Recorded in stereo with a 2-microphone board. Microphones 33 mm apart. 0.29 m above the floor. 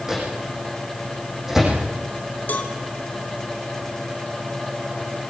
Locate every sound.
0.1 s a microwave: 10° right (ahead or behind), 9 m
2.5 s a cowbell: 55° left (ahead or behind), 2.5 m